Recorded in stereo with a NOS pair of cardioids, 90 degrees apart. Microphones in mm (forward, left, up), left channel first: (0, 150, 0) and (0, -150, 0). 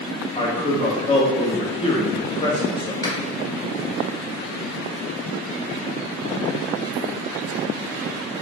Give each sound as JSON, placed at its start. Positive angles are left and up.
{"t": 0.3, "sound": "a man speaking", "azimuth_deg": 15, "distance_m": 1.3}
{"t": 3.0, "sound": "a finger snap", "azimuth_deg": 10, "distance_m": 1.6}